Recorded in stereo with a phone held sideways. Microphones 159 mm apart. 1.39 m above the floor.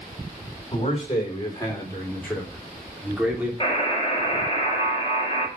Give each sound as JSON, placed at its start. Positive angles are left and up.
{"t": 0.7, "sound": "a man speaking", "side_deg": 35, "distance_m": 4.5}
{"t": 3.6, "sound": "a buzzer", "side_deg": 30, "distance_m": 4.5}